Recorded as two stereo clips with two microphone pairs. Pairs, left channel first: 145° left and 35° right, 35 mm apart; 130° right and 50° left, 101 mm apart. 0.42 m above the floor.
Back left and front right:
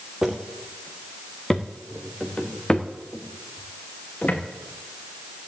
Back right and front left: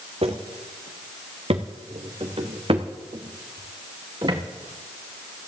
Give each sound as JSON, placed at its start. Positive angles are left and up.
{"t": 0.2, "sound": "footsteps", "azimuth_deg": 35, "distance_m": 2.0}